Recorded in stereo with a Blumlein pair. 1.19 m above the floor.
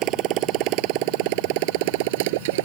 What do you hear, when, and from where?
0.0 s a motorcycle: 35° right; by 2.6 s 50° right